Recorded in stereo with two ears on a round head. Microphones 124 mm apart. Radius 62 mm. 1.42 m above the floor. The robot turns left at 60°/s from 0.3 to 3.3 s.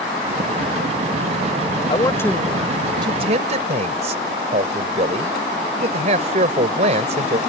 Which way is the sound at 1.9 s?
35° left.